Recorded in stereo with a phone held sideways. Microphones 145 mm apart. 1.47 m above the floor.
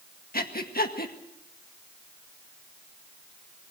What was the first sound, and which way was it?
Breathing, 80° left.